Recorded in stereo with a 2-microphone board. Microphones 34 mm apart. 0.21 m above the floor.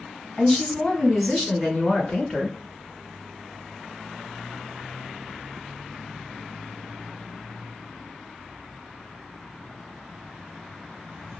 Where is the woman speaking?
15° left (ahead or behind), 1.8 m; by 2.6 s 10° left (ahead or behind), 3 m.